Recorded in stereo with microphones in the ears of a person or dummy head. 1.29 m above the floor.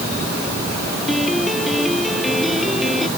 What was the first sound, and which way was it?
A piano, centre (ahead or behind).